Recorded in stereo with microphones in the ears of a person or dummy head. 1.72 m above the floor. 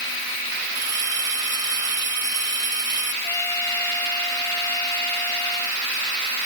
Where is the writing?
No writing in this recording.